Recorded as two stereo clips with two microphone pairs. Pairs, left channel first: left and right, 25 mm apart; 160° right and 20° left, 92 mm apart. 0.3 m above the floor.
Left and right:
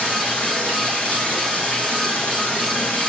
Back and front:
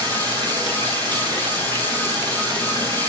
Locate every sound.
0.0 s running water: 60° left, 8 m